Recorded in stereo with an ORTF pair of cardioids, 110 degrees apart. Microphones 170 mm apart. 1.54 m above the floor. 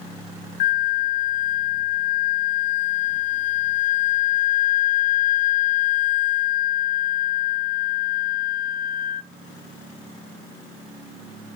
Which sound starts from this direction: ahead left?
A flute, at 0.6 s.